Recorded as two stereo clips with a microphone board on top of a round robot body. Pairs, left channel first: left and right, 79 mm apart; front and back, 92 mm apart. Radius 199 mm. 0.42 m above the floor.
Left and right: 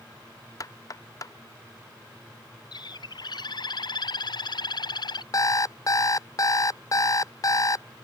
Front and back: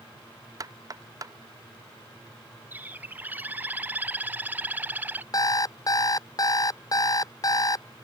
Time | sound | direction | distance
0.6 | knocking | 130° left | ?
2.7 | a bird | 110° left | ?
5.3 | an alarm clock | 45° left | ?